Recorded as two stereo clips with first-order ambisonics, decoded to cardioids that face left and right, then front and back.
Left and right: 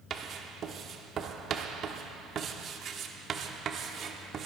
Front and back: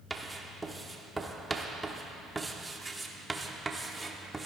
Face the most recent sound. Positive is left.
turn(degrees=-110)